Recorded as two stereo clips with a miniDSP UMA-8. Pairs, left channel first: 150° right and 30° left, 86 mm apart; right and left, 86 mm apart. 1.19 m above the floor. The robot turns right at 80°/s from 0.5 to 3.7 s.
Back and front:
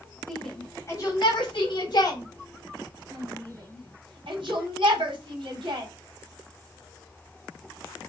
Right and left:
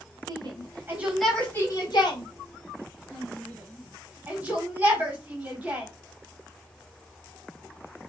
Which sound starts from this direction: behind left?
A shout, at 0.3 s.